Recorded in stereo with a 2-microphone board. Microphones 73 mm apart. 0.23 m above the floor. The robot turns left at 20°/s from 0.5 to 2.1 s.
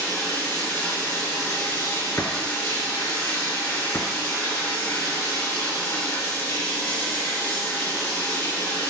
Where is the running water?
140° left, 4 m; by 8.9 s 110° left, 4 m.